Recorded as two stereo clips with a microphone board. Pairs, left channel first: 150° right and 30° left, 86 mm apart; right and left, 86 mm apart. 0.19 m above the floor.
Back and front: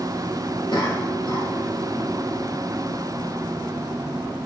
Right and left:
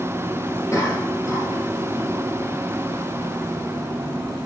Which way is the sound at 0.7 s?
140° right.